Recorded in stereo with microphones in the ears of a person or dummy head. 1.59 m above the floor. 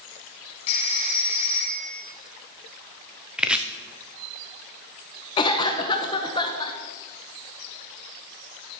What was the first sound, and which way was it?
A phone ringing, 35° left (ahead or behind).